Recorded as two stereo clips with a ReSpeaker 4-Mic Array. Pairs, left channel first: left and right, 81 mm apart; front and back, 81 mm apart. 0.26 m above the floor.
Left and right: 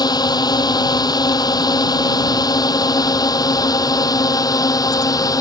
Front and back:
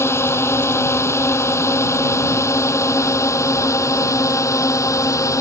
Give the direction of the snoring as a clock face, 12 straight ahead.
No snoring in this recording.